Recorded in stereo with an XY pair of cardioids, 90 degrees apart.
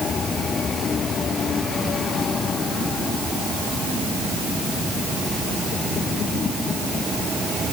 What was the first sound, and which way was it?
Only background noise.